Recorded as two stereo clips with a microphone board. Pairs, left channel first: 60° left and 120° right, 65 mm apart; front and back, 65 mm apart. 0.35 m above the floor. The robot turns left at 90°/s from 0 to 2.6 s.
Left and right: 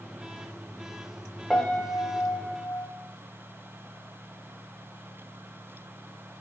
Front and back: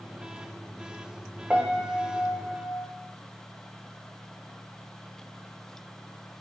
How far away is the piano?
About 1.1 m.